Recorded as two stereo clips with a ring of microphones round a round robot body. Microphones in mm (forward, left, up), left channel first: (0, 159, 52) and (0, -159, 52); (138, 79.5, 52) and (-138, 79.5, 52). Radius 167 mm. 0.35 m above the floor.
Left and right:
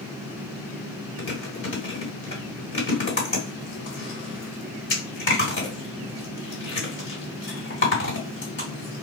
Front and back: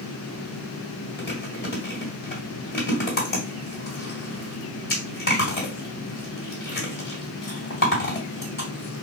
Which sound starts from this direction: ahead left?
Chewing, at 1.2 s.